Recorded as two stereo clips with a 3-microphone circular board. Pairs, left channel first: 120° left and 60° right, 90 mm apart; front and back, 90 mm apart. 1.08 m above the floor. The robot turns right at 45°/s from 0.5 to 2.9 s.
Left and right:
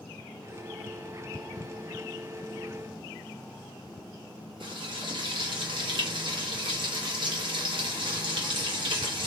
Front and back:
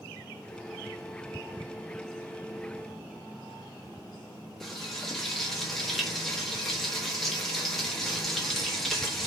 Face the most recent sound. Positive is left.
turn(degrees=-85)